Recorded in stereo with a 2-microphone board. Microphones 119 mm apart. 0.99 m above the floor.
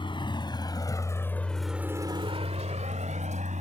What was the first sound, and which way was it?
A vehicle, 45° left (ahead or behind).